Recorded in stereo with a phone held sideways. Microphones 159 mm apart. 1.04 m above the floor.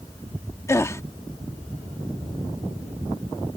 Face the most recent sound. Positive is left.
turn(degrees=20)  # may be behind; listen again after turning